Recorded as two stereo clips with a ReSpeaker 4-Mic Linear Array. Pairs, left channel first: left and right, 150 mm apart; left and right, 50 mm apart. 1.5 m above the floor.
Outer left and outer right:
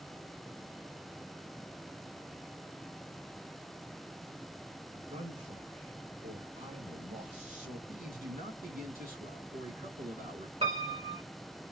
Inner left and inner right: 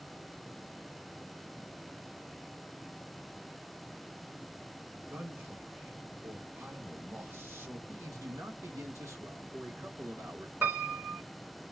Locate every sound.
4.9 s a man speaking: 50° right (ahead or behind), 2.5 m
7.9 s a man speaking: 75° right (ahead or behind), 1.7 m
10.6 s a piano: 45° right (ahead or behind), 2.5 m